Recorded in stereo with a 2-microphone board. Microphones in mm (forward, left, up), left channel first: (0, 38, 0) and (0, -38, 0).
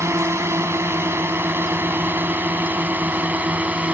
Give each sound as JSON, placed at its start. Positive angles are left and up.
{"t": 0.0, "sound": "a drone", "side_deg": -40}